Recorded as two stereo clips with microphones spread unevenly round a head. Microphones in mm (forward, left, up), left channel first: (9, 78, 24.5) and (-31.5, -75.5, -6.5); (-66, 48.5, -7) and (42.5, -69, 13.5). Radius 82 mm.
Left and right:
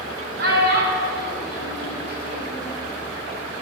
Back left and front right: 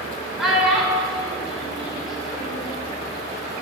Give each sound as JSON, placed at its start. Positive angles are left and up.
{"t": 0.4, "sound": "a child speaking", "azimuth_deg": -135, "distance_m": 3.0}